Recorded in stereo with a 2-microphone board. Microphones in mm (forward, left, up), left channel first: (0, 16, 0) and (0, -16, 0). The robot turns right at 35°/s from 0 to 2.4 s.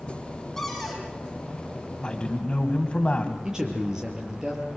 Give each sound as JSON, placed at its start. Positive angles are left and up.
{"t": 0.6, "sound": "a cupboard door", "side_deg": 5, "distance_m": 5.5}
{"t": 2.0, "sound": "a man speaking", "side_deg": 25, "distance_m": 2.5}
{"t": 3.4, "sound": "a man speaking", "side_deg": -20, "distance_m": 6.0}